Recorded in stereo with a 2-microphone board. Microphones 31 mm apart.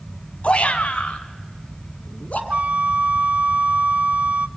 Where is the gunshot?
No gunshot in this recording.